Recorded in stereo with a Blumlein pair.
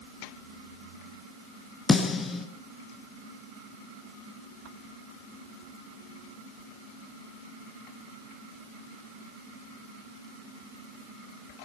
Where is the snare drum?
15° left, 4 m.